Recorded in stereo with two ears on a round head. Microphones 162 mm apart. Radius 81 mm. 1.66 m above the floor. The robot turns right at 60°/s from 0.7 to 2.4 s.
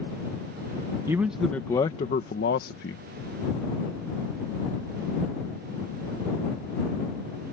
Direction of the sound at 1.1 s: 20° right.